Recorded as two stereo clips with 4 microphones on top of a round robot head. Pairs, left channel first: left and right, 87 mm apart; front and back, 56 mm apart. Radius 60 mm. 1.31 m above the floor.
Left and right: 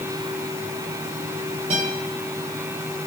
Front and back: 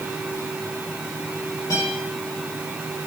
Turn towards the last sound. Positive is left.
turn(degrees=-55)